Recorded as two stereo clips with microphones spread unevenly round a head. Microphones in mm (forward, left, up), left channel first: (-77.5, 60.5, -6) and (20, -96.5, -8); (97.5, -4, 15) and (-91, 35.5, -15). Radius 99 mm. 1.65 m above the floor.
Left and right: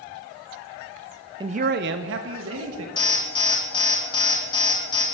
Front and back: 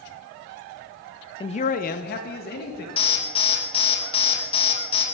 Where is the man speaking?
10° right, 0.5 m; by 2.9 s 50° right, 1.9 m.